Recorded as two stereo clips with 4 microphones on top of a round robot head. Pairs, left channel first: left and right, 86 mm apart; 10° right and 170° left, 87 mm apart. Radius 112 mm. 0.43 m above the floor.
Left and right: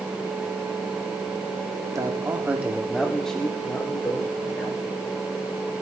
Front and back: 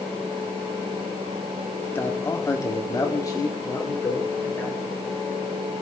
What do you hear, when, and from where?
1.9 s a man speaking: 65° right, 1.7 m; by 4.8 s 40° left, 3 m